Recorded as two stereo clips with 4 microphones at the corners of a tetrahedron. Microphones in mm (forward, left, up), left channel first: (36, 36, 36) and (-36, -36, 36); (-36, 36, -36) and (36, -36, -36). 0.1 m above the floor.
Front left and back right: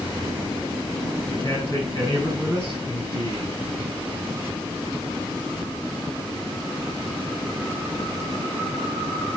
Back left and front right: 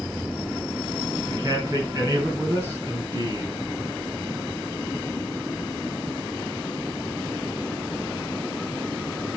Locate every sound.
1.3 s a man speaking: 15° left, 5.5 m